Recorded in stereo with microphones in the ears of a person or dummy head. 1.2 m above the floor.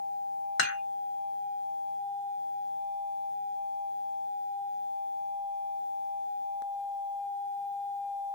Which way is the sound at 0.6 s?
60° left (ahead or behind).